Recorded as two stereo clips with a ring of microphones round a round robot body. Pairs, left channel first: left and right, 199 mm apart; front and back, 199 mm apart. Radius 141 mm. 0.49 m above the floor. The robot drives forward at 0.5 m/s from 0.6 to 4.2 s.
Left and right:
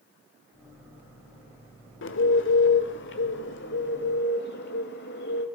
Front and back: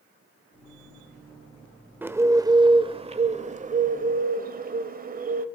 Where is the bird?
100° left, 1.4 m; by 5.5 s 140° left, 1.9 m.